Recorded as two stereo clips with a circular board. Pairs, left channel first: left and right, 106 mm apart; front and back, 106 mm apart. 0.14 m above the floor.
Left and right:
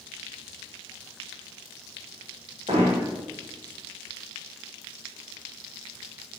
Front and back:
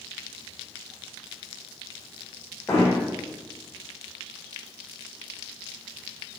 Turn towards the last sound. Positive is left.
turn(degrees=-65)